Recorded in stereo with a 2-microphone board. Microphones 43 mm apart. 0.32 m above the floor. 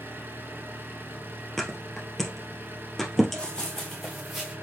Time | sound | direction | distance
0.0 | an engine running | 60° right (ahead or behind) | 1.3 m
1.6 | a thud | 5° left (ahead or behind) | 1.7 m
3.4 | running footsteps | 25° left (ahead or behind) | 1.4 m